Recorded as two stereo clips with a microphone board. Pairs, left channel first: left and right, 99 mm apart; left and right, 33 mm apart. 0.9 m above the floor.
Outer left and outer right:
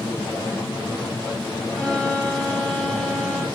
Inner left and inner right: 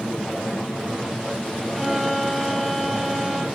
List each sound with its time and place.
1.7 s a violin: centre (ahead or behind), 8 m